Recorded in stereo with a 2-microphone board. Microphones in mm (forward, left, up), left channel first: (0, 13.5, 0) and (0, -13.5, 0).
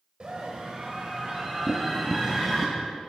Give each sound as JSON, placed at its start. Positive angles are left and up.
{"t": 0.2, "sound": "a scream", "side_deg": -45, "distance_m": 1.6}
{"t": 1.7, "sound": "tapping", "side_deg": 30, "distance_m": 0.8}